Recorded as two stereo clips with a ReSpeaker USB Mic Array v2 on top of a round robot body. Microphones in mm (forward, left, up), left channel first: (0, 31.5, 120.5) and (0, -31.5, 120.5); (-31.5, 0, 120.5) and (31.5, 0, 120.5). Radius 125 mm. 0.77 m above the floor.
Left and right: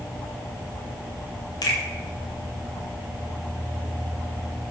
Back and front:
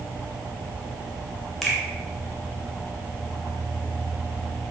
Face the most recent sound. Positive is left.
turn(degrees=95)